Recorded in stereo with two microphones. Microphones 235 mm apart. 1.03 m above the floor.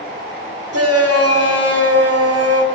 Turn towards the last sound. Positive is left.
turn(degrees=-85)